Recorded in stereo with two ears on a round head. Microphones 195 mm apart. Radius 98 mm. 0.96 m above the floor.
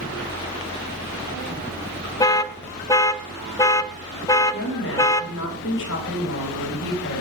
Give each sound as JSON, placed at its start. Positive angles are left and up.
{"t": 2.2, "sound": "an alarm", "side_deg": 15, "distance_m": 0.5}
{"t": 4.5, "sound": "a woman speaking", "side_deg": 55, "distance_m": 6.0}